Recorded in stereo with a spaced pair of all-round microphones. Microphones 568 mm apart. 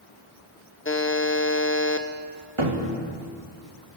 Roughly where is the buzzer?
Left.